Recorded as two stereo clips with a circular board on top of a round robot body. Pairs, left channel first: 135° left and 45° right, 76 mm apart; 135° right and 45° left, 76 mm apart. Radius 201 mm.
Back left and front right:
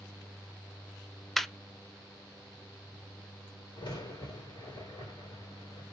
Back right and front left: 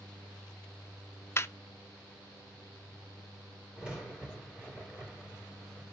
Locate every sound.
1.4 s laughter: 140° right, 0.6 m
3.8 s a crack: 125° left, 3 m